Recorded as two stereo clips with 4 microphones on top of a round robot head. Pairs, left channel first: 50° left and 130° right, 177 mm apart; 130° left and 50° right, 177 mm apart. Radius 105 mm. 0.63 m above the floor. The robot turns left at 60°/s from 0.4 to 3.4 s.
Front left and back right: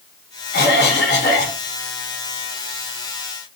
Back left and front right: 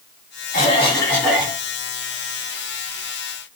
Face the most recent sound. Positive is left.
turn(degrees=-90)